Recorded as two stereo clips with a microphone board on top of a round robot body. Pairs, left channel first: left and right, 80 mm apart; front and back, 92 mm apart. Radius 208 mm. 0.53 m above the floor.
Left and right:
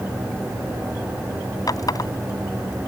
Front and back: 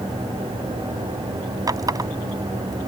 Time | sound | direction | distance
1.7 | a running tap | 130° left | ?